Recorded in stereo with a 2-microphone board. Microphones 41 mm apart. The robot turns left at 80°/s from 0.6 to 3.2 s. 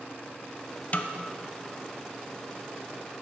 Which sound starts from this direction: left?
A snare drum, at 0.9 s.